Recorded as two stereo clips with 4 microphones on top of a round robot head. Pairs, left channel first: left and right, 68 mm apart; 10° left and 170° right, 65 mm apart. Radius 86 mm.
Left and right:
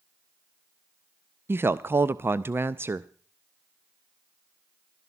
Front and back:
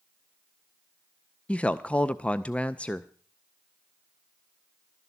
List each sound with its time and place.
1.5 s a woman speaking: 50° right, 0.5 m